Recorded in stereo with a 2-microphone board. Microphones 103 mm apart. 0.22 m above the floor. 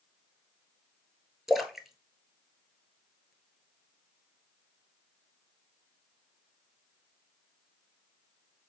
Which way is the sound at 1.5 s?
Centre (ahead or behind).